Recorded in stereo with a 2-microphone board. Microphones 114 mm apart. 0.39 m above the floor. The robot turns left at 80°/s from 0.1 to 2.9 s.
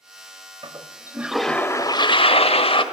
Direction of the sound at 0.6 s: 120° right.